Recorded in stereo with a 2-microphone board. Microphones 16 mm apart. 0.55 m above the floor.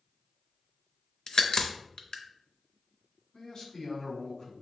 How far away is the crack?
About 0.6 m.